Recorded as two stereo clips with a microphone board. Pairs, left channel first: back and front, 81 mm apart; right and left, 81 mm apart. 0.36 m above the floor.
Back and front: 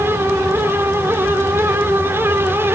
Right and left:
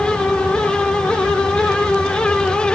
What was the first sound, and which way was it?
Only background noise.